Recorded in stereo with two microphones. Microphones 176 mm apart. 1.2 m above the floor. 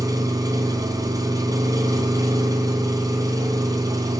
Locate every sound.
0.0 s an engine running: 20° right (ahead or behind), 3 m